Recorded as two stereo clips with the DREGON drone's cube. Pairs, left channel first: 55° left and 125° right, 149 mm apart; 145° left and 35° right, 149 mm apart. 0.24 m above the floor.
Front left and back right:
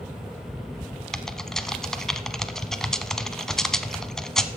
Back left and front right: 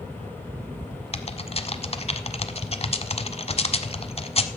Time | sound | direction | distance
1.1 | typing on a keyboard | 140° left | 0.8 m